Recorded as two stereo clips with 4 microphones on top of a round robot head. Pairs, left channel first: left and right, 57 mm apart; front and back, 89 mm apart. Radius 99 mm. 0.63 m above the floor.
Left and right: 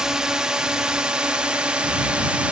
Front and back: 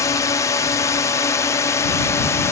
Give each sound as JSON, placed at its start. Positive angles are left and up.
{"t": 0.0, "sound": "a drone", "azimuth_deg": -20}